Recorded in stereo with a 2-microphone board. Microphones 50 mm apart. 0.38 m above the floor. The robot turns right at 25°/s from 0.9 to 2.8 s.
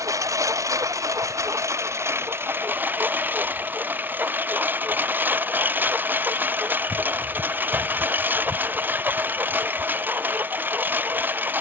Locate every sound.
0.0 s a lawn mower: 85° right; by 11.6 s 40° right